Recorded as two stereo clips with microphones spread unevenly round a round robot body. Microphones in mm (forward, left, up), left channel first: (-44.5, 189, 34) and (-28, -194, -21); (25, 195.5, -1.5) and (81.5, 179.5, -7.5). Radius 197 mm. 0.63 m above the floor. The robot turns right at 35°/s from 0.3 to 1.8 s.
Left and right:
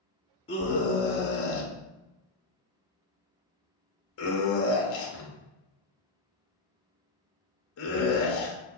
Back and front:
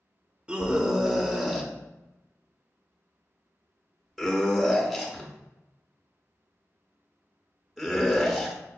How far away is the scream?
About 0.6 m.